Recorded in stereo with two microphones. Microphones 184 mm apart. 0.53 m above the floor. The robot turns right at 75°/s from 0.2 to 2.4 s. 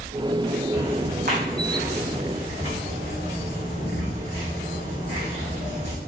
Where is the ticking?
15° right (ahead or behind), 4 m; by 6.0 s 35° right (ahead or behind), 4 m.